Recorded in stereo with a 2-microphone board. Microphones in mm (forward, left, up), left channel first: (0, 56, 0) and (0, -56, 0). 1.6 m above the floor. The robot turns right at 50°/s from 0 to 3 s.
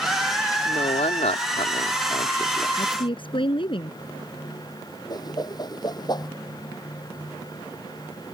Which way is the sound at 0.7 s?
55° left.